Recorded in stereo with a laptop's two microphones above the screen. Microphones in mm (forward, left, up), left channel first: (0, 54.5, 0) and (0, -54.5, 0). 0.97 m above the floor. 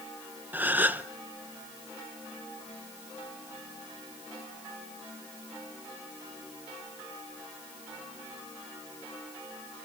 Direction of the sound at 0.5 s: 15° right (ahead or behind).